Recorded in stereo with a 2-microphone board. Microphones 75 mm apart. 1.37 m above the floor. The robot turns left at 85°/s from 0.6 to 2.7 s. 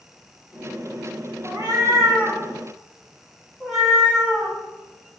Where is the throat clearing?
No throat clearing in this recording.